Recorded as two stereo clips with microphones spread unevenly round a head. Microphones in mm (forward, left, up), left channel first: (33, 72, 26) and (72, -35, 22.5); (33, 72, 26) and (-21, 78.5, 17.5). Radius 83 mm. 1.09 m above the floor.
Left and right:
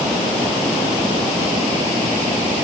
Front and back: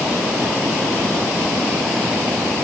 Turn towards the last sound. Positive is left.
No sound to turn to.